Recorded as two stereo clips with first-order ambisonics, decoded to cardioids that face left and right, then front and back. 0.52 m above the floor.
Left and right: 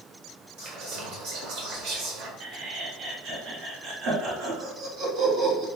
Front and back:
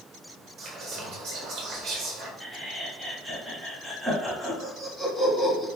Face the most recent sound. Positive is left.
turn(degrees=-95)